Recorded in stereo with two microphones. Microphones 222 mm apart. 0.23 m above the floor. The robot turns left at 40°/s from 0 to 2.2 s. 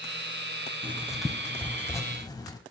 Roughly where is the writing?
Centre.